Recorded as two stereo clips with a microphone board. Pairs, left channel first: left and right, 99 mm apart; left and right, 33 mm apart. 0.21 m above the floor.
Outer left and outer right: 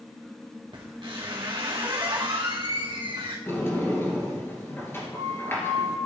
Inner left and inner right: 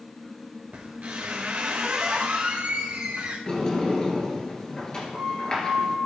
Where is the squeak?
55° right (ahead or behind), 1.9 m.